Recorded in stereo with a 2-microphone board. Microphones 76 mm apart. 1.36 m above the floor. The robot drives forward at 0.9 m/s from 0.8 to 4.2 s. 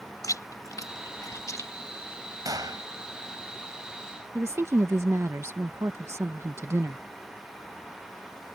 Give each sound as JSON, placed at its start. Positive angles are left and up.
{"t": 0.2, "sound": "chewing", "side_deg": 50}
{"t": 2.5, "sound": "a gunshot", "side_deg": -55}
{"t": 4.3, "sound": "a woman speaking", "side_deg": -35}